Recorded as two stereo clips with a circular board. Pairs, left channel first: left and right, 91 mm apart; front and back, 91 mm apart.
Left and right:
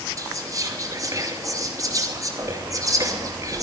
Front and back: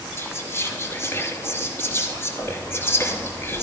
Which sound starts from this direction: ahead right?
Whispering, at 0.2 s.